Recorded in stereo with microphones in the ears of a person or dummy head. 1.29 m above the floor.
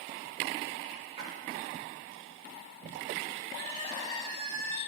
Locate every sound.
1.2 s a splash: 35° right (ahead or behind), 3 m
3.5 s crying: 30° left (ahead or behind), 3 m